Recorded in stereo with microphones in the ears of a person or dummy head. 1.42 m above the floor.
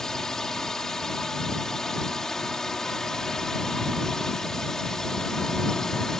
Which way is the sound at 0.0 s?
5° left (ahead or behind).